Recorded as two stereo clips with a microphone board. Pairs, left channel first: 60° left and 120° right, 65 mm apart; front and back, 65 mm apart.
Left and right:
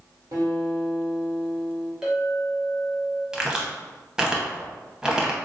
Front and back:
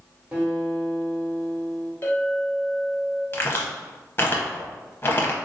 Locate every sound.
0.3 s a guitar: 110° right, 1.2 m
2.0 s a clink: 45° right, 0.9 m
3.3 s a crack: 45° right, 0.7 m